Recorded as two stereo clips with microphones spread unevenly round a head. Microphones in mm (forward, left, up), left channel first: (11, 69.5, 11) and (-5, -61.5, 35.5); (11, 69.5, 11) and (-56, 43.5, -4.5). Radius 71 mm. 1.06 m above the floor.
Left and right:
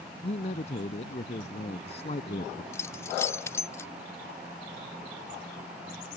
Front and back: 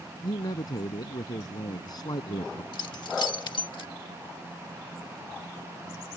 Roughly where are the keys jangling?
Ahead.